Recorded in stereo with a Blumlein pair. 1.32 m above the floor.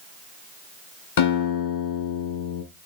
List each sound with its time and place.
1.2 s a guitar: 55° left, 5 m